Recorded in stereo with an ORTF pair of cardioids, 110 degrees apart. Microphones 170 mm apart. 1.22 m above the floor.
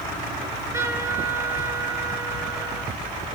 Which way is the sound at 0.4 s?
20° right.